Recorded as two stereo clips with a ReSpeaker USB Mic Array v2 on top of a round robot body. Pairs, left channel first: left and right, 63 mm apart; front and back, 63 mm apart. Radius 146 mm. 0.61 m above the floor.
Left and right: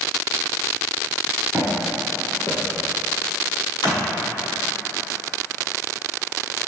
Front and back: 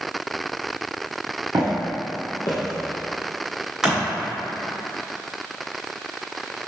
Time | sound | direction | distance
1.5 | footsteps | 150° right | 0.8 m
3.8 | crushing | 100° left | 0.8 m